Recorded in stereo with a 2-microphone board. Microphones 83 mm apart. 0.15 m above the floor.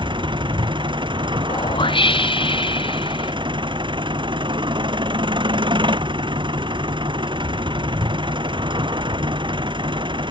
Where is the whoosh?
80° left.